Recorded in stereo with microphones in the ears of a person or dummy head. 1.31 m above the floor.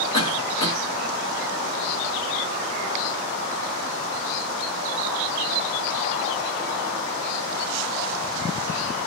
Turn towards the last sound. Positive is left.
turn(degrees=25)  # may be behind; listen again after turning